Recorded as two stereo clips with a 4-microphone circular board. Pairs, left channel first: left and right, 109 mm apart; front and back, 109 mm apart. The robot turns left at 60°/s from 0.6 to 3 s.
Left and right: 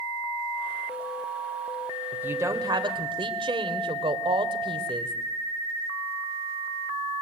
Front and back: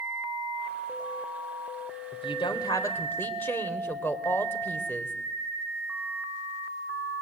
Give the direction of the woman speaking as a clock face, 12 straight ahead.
12 o'clock.